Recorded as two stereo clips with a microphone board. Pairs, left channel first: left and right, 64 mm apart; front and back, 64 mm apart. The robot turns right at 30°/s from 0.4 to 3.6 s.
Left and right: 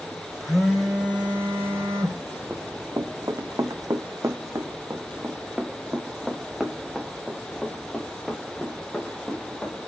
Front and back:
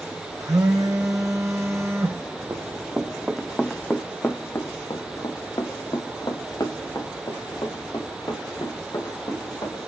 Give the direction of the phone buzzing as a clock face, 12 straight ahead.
6 o'clock.